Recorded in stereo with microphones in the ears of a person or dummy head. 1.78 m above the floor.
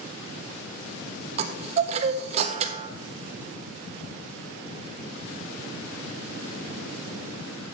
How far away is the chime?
About 0.7 m.